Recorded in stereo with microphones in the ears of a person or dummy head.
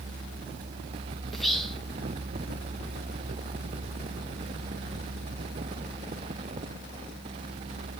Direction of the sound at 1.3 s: 5° left (ahead or behind).